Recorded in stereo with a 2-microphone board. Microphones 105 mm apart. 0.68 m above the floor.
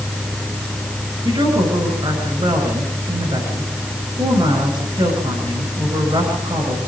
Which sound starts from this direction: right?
A woman speaking, at 1.2 s.